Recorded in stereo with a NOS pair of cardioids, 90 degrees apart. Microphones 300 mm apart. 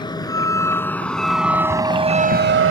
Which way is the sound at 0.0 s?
15° left.